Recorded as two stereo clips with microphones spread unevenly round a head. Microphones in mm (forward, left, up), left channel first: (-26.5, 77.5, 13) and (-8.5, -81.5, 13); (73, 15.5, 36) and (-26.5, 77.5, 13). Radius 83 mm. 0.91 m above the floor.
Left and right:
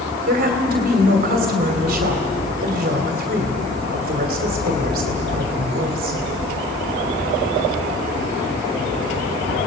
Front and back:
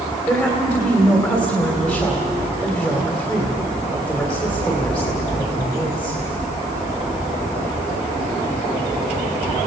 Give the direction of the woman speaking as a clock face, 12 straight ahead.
4 o'clock.